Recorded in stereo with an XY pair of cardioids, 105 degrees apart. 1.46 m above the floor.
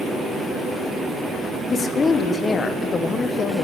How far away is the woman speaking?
About 1.0 m.